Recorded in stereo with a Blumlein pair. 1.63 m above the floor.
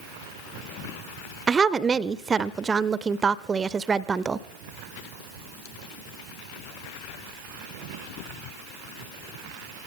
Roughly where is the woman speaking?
Ahead.